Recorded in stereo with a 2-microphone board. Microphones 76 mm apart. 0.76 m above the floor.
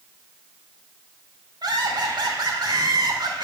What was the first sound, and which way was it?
Laughter, 70° right (ahead or behind).